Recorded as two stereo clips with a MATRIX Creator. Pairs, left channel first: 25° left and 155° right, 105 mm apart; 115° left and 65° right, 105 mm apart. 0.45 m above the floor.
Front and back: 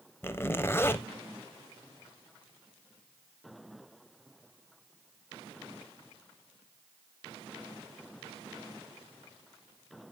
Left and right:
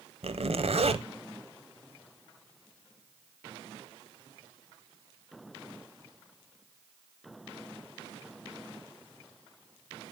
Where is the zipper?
45° right, 0.5 m.